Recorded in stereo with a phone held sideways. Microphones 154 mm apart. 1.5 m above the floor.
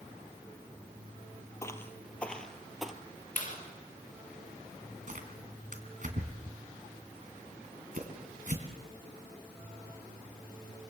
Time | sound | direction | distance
1.6 | footsteps | 20° left (ahead or behind) | 1.5 m
3.4 | a clap | 60° left (ahead or behind) | 5 m
5.1 | tearing paper | 60° right (ahead or behind) | 3 m